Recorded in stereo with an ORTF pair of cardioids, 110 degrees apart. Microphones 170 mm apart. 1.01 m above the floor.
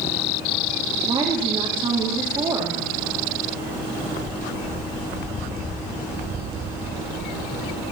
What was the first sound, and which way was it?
A woman speaking, 30° right.